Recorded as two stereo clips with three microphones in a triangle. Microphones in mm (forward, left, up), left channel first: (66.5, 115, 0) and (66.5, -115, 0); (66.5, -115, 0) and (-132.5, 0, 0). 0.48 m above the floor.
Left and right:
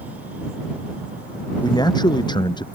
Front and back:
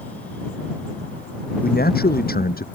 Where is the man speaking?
15° left; by 2.6 s 20° left.